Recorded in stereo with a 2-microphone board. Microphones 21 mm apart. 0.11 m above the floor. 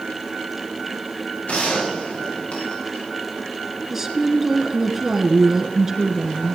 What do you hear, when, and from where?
1.5 s a gunshot: 85° left, 7 m
3.9 s a woman speaking: 15° right (ahead or behind), 1.6 m